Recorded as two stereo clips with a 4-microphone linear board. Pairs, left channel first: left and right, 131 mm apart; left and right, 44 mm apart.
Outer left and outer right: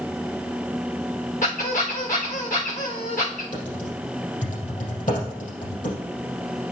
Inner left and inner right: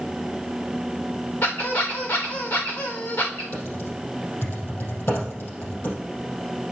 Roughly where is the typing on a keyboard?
Left.